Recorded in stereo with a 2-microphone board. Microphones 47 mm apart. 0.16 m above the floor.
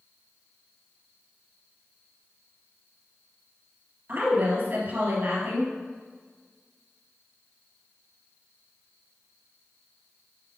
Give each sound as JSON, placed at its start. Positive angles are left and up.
{"t": 4.1, "sound": "a woman speaking", "side_deg": -45, "distance_m": 3.0}